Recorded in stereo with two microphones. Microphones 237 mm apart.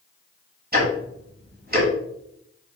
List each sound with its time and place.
0.7 s ticking: 40° right (ahead or behind), 1.3 m